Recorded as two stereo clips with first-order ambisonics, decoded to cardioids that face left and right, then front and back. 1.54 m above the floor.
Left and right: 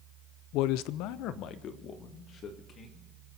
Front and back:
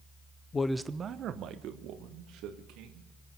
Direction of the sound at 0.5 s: 70° left.